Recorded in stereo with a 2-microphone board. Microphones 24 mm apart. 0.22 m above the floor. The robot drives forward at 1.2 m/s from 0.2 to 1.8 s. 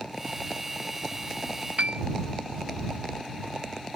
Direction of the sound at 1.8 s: 65° right (ahead or behind).